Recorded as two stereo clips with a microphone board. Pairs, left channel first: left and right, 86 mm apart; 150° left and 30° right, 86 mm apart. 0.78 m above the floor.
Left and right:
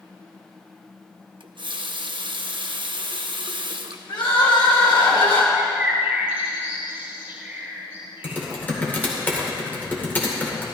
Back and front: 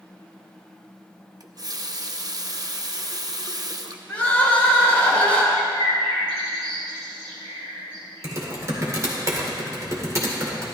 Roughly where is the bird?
Ahead.